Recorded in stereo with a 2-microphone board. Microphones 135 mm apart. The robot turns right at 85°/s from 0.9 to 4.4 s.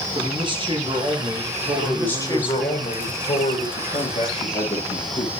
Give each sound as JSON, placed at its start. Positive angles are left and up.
{"t": 0.1, "sound": "a man speaking", "azimuth_deg": -145, "distance_m": 5.0}
{"t": 1.7, "sound": "a man speaking", "azimuth_deg": -20, "distance_m": 5.5}
{"t": 3.8, "sound": "a man speaking", "azimuth_deg": 80, "distance_m": 8.0}